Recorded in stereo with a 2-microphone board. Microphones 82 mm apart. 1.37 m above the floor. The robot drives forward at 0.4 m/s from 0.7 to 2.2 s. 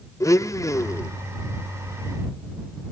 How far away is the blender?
About 0.6 m.